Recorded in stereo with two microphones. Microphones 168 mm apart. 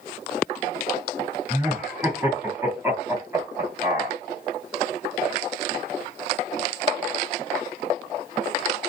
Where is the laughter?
15° right (ahead or behind), 1.7 m.